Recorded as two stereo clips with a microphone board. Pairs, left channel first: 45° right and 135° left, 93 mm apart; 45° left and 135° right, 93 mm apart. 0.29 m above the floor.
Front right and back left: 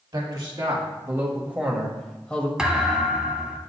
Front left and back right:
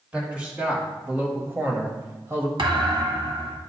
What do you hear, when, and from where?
0.1 s a man speaking: 155° left, 1.4 m; by 2.5 s 100° right, 1.0 m
2.6 s a thud: 145° right, 0.8 m